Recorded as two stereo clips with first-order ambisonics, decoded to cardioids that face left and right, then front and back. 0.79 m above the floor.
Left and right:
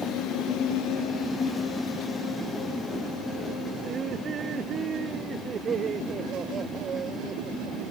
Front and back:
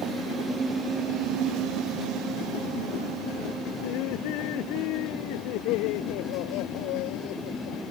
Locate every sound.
3.8 s laughter: 25° right